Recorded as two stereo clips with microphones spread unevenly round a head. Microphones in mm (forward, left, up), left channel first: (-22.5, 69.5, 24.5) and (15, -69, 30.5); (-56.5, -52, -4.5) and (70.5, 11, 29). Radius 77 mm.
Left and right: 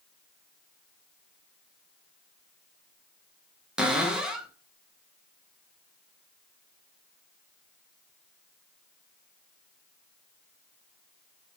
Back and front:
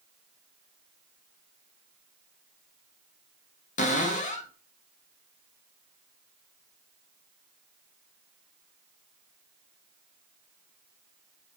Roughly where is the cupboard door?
Behind.